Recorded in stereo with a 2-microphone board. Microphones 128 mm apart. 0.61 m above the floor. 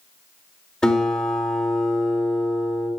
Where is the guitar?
5° left (ahead or behind), 2.5 m.